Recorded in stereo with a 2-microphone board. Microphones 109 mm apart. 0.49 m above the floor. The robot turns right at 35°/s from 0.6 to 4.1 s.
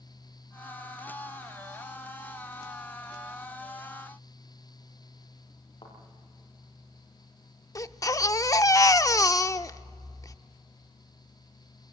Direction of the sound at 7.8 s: 30° left (ahead or behind).